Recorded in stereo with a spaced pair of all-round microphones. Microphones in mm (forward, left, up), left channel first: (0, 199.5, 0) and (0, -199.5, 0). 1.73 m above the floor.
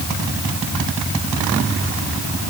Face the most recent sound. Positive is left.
No sound to turn to.